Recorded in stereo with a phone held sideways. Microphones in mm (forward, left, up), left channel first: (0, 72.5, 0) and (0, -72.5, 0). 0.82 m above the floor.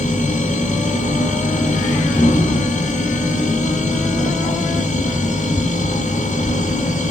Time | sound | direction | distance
0.0 | a machine running | 60° left (ahead or behind) | 1.8 m